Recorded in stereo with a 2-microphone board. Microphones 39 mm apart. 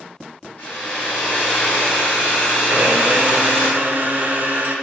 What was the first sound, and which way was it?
A hair dryer, 45° left (ahead or behind).